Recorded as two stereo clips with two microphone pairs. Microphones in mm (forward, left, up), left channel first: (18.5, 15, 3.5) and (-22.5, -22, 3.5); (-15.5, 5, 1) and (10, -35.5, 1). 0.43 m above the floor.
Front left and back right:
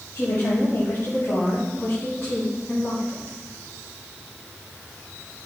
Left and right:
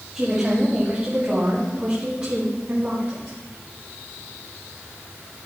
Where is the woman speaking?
20° left, 2.5 m; by 3.4 s 5° right, 4 m.